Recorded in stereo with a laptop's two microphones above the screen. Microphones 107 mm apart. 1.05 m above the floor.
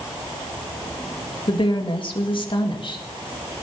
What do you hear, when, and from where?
1.5 s a woman speaking: 50° left (ahead or behind), 1.7 m